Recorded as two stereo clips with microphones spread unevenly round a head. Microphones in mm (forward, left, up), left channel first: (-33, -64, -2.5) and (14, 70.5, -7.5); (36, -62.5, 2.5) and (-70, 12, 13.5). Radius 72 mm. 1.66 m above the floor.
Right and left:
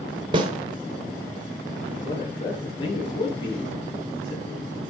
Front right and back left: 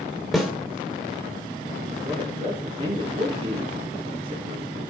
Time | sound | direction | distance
0.3 | a snare drum | 65° left | 1.5 m
2.0 | a man speaking | 165° right | 3.5 m